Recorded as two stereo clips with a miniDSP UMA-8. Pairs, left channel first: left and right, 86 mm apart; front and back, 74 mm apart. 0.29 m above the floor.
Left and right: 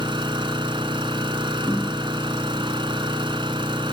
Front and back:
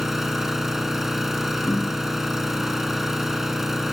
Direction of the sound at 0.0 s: 95° right.